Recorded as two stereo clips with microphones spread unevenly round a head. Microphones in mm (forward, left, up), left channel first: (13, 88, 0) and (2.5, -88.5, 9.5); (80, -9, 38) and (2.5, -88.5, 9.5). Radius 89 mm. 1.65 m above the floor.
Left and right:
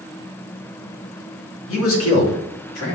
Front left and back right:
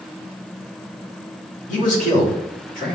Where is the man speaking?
80° left, 3 m; by 3.0 s 90° left, 3.5 m.